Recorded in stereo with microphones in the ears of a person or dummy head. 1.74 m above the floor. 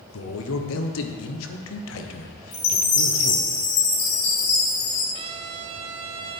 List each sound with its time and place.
0.1 s a man speaking: 75° left (ahead or behind), 1.2 m
2.5 s a chime: 80° left, 2 m
5.1 s a trumpet: 35° right (ahead or behind), 0.6 m